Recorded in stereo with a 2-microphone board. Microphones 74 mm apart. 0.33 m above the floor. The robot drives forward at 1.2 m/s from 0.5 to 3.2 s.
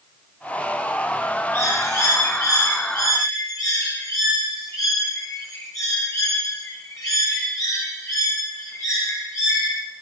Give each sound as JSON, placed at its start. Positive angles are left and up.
{"t": 1.5, "sound": "a bird", "side_deg": 40, "distance_m": 8.0}